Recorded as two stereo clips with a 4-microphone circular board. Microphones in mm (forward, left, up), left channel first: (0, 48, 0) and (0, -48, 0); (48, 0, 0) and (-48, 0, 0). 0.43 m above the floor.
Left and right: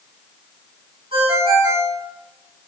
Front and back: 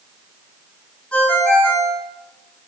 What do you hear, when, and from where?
1.1 s a ringtone: 80° right, 3 m